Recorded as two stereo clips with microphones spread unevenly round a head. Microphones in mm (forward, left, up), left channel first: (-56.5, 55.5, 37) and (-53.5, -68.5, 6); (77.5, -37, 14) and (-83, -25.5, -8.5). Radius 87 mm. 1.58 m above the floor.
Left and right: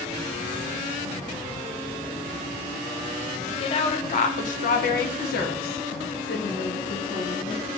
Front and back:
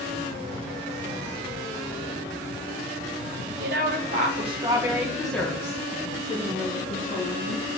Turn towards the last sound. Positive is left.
turn(degrees=40)